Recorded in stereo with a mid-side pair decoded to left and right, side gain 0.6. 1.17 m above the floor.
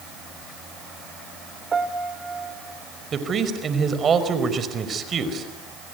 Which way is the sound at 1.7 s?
25° right.